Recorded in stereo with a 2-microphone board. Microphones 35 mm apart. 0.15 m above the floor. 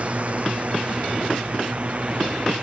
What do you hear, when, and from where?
0.0 s a drone: 40° right (ahead or behind)